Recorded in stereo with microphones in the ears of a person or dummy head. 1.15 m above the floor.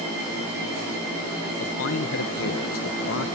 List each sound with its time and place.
1.6 s a man speaking: 65° left (ahead or behind), 1.0 m